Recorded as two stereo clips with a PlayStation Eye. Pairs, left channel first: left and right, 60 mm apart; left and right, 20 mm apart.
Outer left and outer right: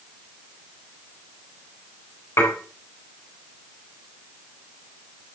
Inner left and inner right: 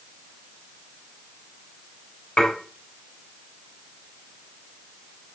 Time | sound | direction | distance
2.4 | dishes clattering | 50° left (ahead or behind) | 4 m